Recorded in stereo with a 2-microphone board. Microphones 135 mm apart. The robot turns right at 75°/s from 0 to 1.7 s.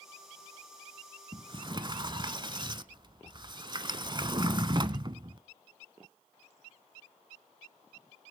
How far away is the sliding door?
About 0.7 m.